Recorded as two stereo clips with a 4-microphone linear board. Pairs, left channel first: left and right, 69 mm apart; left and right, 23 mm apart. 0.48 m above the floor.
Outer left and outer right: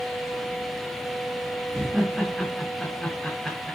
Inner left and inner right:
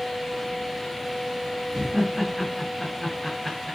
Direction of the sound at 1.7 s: 5° right (ahead or behind).